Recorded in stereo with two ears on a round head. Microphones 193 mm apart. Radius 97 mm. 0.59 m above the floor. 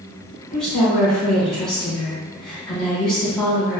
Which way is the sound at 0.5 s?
5° left (ahead or behind).